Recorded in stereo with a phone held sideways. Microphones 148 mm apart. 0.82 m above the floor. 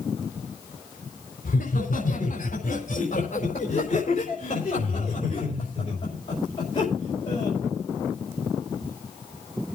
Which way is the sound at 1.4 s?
70° left (ahead or behind).